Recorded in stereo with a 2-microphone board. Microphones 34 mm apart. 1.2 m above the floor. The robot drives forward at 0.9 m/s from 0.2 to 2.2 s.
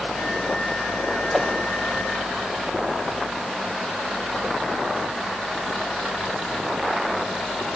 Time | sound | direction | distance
1.3 | a whoosh | 5° left (ahead or behind) | 1.0 m